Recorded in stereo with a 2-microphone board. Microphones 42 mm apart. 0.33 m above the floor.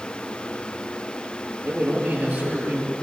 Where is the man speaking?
35° right (ahead or behind), 8 m.